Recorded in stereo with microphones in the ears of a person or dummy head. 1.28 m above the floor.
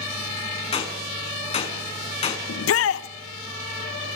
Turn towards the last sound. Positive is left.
turn(degrees=70)  # may be behind; listen again after turning